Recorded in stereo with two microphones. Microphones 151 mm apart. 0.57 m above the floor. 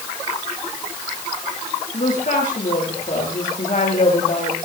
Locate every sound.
1.9 s a woman speaking: 60° left (ahead or behind), 9 m